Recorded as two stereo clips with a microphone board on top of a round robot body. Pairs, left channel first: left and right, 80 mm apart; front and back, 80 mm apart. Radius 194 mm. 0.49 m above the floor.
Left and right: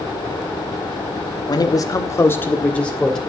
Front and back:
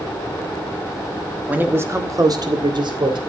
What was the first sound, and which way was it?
A man speaking, 110° left.